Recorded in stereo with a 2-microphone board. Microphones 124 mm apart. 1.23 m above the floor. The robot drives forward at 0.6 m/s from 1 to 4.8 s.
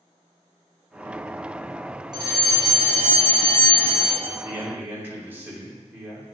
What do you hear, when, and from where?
2.1 s a fire alarm: 35° right (ahead or behind), 1.5 m; by 4.1 s 45° right (ahead or behind), 1.2 m
4.2 s a man speaking: 20° right (ahead or behind), 2.5 m; by 6.2 s 15° right (ahead or behind), 3 m